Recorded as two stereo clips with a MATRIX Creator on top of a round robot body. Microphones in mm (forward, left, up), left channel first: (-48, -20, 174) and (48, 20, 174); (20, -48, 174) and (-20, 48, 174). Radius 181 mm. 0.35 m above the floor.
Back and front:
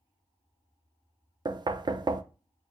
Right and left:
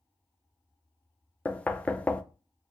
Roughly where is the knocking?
Ahead.